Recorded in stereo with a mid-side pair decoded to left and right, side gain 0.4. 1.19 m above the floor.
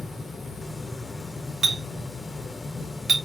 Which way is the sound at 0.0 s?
30° left.